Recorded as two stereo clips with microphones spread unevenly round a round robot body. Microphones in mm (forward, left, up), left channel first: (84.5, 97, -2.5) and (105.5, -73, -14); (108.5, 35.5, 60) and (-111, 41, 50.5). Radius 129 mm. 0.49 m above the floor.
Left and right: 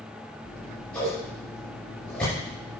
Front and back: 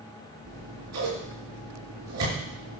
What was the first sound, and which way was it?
Scissors, 175° right.